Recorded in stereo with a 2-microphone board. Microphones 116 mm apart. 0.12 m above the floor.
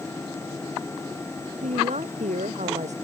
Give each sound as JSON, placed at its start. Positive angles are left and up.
{"t": 1.6, "sound": "a woman speaking", "side_deg": -80}